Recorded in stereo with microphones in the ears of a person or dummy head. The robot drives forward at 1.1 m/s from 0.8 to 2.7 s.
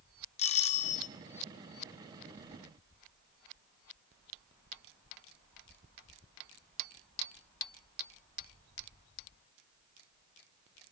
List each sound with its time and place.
0.4 s a doorbell: 35° left (ahead or behind), 1.7 m; by 1.1 s 45° left (ahead or behind), 1.5 m